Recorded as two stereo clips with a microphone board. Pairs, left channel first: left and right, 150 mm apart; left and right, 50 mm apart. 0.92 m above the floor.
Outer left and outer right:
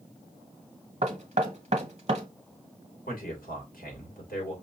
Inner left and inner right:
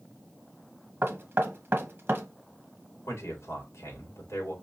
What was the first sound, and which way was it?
Knocking, 45° right (ahead or behind).